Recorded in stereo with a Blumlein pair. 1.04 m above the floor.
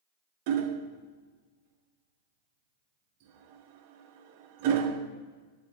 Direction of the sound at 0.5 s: 45° right.